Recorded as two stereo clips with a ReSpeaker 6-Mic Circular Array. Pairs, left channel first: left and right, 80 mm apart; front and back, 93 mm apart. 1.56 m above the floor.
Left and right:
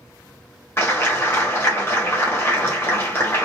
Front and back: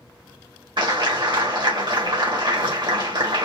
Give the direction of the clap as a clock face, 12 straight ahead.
7 o'clock.